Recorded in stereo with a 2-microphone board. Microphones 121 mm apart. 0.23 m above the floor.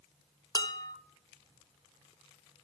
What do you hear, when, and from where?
0.6 s dishes clattering: 30° left (ahead or behind), 0.9 m